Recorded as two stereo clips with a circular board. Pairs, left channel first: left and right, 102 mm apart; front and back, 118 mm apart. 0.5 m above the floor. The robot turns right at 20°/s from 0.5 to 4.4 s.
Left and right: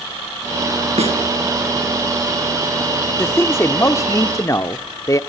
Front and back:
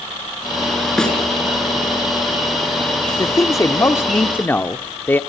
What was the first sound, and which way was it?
A snare drum, 85° right.